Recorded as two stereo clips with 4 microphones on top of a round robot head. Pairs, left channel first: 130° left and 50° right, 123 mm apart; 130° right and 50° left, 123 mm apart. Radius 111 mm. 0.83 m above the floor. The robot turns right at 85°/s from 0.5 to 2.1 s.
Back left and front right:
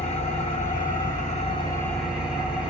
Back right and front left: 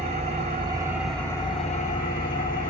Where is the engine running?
90° left, 2 m; by 2.7 s 135° right, 2 m.